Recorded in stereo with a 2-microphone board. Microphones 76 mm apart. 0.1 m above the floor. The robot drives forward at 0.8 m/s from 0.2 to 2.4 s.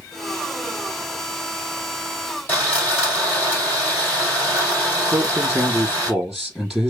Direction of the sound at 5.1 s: Centre (ahead or behind).